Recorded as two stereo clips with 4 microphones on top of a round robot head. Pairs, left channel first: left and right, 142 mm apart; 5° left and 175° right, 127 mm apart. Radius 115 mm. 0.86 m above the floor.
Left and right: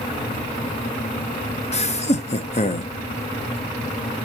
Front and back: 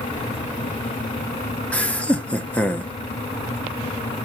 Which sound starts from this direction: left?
Laughter, at 1.7 s.